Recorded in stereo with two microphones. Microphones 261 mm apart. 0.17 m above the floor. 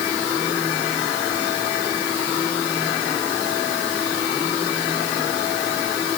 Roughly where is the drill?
I don't hear a drill.